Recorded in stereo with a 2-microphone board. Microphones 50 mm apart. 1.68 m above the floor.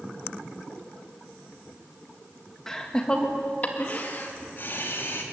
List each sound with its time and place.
2.7 s laughter: 10° left (ahead or behind), 2.5 m; by 5.2 s 50° left (ahead or behind), 3.5 m